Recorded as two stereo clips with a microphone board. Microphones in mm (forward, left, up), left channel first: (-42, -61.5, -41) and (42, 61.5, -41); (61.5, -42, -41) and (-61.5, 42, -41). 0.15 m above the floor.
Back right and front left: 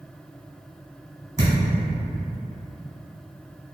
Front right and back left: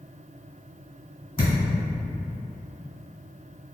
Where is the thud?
20° left, 1.5 m.